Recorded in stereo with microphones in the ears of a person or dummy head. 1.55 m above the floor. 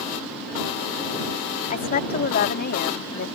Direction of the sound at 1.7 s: 40° left (ahead or behind).